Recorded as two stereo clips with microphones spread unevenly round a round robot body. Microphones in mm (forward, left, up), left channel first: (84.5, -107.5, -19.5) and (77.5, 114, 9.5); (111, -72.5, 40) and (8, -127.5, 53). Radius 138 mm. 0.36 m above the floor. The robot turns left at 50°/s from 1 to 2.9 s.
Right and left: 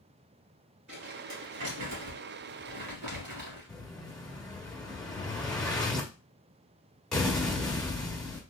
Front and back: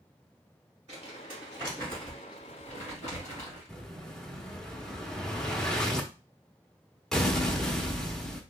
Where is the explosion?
30° right, 0.8 m.